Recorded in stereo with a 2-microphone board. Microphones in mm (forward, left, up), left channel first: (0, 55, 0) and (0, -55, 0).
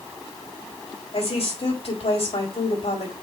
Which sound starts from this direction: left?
A woman speaking, at 1.1 s.